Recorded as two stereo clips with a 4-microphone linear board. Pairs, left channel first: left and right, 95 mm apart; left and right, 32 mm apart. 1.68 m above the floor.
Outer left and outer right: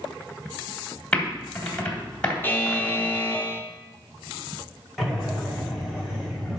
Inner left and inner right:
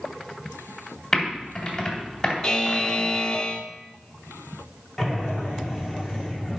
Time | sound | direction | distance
1.1 | typing on a keyboard | 10° left (ahead or behind) | 2.5 m
2.4 | a buzzer | 20° left (ahead or behind) | 0.8 m
5.0 | breathing | centre (ahead or behind) | 2 m